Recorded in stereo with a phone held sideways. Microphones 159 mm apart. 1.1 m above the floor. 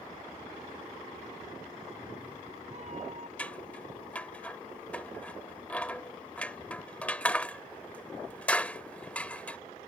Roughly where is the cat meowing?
Right.